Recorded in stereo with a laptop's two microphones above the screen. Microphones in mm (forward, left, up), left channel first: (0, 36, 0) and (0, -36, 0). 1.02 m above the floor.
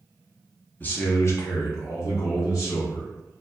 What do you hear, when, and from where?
0.8 s a man speaking: 25° left (ahead or behind), 0.5 m; by 3.1 s 50° left (ahead or behind), 1.4 m